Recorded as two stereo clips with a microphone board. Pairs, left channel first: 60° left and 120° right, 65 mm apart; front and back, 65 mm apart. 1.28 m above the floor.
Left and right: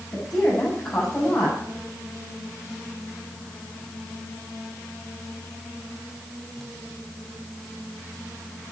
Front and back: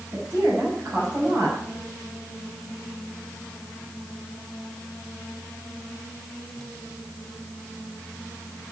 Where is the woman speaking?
125° left, 6 m.